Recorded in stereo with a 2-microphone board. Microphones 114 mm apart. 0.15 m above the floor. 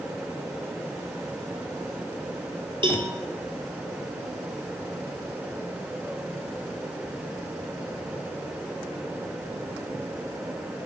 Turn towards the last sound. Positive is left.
turn(degrees=-45)  # may be behind; listen again after turning